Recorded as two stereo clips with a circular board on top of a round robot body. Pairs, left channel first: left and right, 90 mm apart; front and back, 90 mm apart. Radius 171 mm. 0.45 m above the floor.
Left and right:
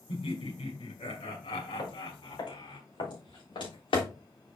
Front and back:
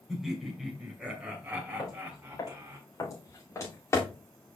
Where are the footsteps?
45° left, 5.5 m; by 4.1 s 60° left, 4 m.